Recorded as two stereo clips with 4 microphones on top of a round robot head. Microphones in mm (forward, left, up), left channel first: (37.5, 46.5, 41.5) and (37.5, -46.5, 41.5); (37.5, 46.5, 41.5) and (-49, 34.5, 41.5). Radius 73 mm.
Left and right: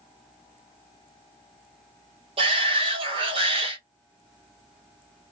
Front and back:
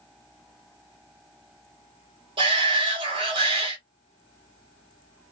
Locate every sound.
2.4 s a shout: 130° right, 2 m